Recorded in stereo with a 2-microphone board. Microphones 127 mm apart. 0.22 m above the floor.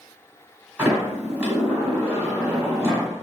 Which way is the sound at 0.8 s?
10° right (ahead or behind).